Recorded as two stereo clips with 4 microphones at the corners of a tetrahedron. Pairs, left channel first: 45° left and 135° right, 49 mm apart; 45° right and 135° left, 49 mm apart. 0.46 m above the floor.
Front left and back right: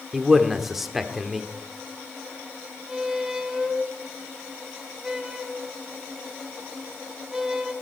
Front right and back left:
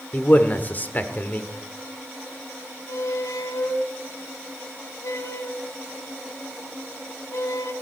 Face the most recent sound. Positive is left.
turn(degrees=-55)